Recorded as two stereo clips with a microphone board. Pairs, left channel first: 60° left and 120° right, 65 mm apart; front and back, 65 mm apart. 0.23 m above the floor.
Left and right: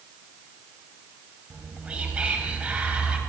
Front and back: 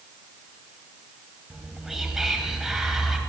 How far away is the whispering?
About 1.4 m.